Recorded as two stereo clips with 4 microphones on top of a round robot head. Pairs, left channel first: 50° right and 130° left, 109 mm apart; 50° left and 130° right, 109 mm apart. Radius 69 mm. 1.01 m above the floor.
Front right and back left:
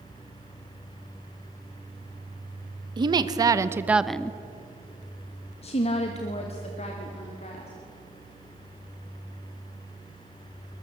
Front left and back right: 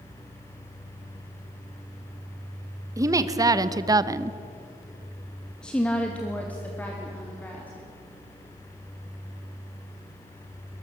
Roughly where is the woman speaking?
Behind.